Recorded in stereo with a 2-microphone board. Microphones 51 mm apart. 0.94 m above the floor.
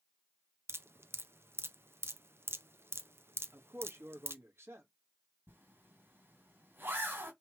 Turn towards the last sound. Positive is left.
turn(degrees=-50)  # may be behind; listen again after turning